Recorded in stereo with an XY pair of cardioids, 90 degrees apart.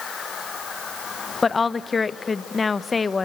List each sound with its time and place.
1.4 s a woman speaking: 35° left, 0.8 m